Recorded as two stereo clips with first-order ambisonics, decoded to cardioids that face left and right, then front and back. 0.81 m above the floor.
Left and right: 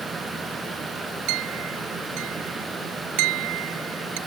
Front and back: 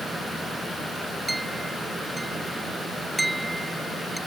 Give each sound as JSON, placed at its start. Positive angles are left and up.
{"t": 1.3, "sound": "a clink", "azimuth_deg": -95}